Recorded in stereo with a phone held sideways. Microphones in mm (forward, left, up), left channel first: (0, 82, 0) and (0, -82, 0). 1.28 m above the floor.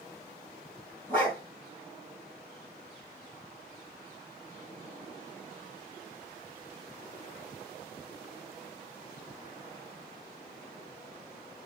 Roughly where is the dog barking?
Centre.